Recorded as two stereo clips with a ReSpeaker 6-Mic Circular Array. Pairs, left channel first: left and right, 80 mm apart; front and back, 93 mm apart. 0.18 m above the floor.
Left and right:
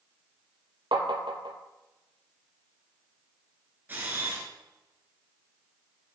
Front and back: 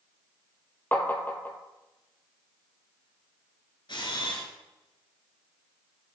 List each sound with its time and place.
0.9 s tapping: 70° right, 1.0 m
3.9 s a camera shutter: 25° right, 1.5 m